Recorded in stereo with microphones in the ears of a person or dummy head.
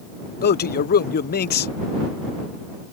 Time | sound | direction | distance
0.4 | a man speaking | 45° left (ahead or behind) | ?